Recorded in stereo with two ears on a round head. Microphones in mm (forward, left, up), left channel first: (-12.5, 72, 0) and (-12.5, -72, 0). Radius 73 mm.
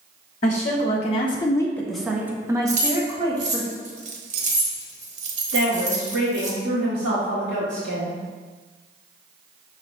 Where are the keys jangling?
50° right (ahead or behind), 1.1 m.